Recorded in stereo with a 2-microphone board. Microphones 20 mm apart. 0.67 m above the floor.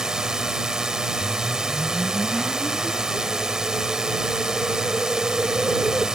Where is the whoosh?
10° left (ahead or behind).